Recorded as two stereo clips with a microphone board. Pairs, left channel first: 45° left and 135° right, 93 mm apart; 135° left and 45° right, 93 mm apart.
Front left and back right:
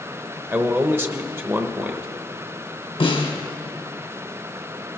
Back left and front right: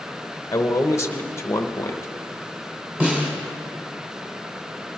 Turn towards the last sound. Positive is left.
turn(degrees=30)